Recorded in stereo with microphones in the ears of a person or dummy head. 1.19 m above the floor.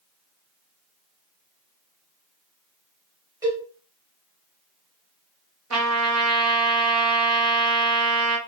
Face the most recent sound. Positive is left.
turn(degrees=-70)  # may be behind; listen again after turning